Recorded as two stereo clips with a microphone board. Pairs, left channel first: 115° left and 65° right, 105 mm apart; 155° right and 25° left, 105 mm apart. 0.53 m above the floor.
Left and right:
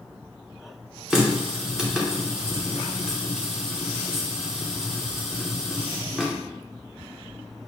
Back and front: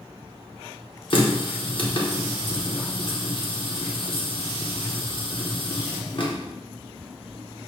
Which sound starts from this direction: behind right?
A running tap, at 1.1 s.